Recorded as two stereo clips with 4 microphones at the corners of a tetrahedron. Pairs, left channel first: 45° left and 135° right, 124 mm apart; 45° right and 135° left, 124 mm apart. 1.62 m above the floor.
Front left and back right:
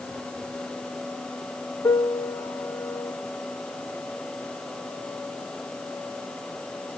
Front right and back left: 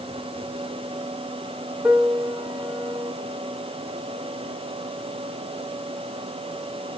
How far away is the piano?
About 1.1 m.